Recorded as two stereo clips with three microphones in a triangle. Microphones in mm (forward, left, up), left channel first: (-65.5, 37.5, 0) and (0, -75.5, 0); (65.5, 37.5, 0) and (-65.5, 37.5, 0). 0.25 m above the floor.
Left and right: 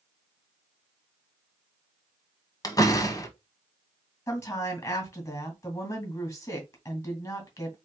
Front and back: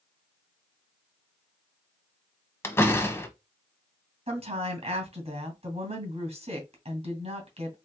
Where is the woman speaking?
Straight behind, 2.5 m.